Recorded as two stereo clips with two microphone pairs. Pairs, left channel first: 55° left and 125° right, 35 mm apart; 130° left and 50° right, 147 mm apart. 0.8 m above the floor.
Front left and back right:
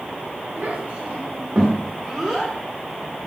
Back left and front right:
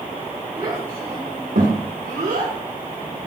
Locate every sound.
0.6 s a child speaking: 105° right, 2.5 m; by 2.5 s 20° right, 1.7 m